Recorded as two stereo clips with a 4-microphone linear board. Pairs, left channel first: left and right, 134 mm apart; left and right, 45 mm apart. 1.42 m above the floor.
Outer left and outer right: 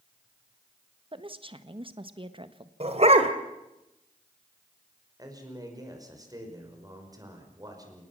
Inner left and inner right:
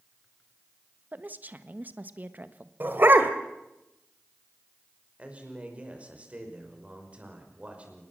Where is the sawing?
I don't hear sawing.